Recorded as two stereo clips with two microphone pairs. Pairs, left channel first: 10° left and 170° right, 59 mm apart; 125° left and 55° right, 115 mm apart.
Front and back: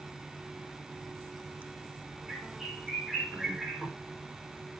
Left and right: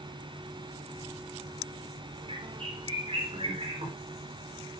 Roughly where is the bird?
Right.